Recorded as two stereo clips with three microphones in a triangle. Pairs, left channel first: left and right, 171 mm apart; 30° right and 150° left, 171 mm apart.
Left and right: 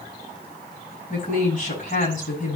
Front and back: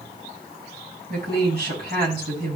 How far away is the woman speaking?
About 6 m.